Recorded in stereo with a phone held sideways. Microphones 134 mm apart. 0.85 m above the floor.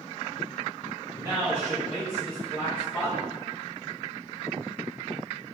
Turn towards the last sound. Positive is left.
turn(degrees=15)  # may be behind; listen again after turning